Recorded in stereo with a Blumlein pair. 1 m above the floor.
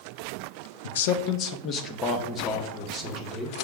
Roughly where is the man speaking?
Ahead left.